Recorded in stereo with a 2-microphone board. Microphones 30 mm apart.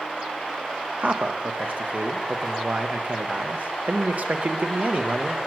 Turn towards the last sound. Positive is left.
turn(degrees=-55)  # may be behind; listen again after turning